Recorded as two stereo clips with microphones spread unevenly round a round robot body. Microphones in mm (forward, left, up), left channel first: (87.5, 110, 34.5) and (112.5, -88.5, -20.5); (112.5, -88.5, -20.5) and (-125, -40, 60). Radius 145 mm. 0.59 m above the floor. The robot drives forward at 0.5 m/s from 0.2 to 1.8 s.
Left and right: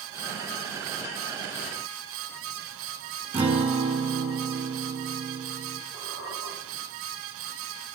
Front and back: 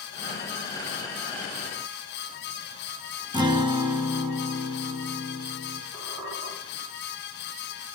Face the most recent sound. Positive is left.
turn(degrees=180)